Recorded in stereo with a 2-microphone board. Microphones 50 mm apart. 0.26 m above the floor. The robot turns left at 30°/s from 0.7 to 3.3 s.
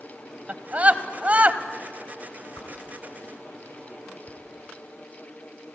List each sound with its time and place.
0.5 s a scream: 30° right (ahead or behind), 1.1 m
2.6 s a whoosh: 70° left (ahead or behind), 2.5 m; by 4.4 s 55° left (ahead or behind), 2.5 m